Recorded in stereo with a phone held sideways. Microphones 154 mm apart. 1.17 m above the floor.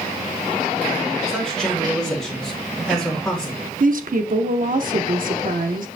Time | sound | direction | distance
1.3 | a man speaking | 5° left (ahead or behind) | 2.5 m
3.8 | a woman speaking | 60° right (ahead or behind) | 0.6 m